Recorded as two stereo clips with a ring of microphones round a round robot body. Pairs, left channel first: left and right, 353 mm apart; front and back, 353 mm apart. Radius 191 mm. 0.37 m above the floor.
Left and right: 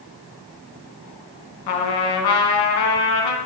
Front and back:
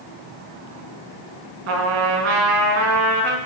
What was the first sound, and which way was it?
A trumpet, 125° left.